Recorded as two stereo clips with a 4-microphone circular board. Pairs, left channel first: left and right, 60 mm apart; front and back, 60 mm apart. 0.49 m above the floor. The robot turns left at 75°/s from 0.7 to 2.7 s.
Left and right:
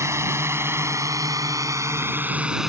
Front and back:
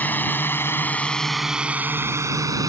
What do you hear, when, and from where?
0.0 s a drone: 60° right; by 2.7 s 175° right